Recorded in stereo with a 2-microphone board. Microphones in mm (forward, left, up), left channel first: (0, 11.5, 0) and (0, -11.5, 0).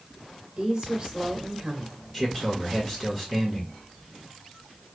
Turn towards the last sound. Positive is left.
turn(degrees=10)  # may be behind; listen again after turning